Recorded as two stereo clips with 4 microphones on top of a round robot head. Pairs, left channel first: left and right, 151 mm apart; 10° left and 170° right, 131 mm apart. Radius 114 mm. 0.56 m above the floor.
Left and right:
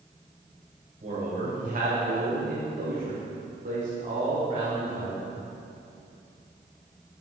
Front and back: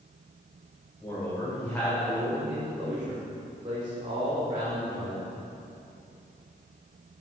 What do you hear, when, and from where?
1.0 s a man speaking: 60° right, 3 m; by 5.3 s 155° right, 2.5 m